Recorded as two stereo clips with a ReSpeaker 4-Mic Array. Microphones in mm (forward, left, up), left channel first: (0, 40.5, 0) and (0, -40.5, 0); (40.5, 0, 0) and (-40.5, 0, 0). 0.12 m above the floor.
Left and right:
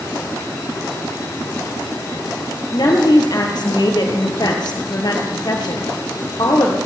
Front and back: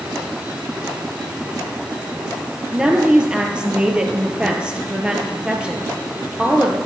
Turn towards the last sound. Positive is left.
turn(degrees=105)